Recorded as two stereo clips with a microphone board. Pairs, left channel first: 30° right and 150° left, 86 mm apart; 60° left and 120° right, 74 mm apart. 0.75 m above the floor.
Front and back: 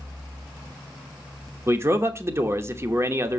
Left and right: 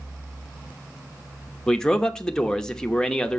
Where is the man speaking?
130° left, 0.9 m.